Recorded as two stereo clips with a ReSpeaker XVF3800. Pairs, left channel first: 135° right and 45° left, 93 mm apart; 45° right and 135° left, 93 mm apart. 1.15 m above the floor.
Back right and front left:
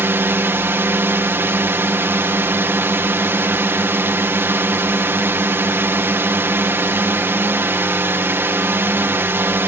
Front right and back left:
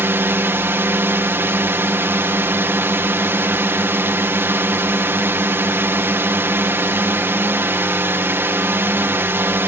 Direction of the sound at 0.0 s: 90° left.